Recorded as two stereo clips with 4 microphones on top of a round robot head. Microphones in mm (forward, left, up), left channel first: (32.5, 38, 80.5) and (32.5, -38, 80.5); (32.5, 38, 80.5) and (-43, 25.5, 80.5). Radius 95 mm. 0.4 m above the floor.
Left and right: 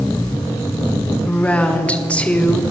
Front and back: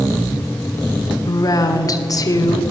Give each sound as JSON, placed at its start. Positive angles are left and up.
{"t": 1.2, "sound": "a woman speaking", "azimuth_deg": 20, "distance_m": 1.7}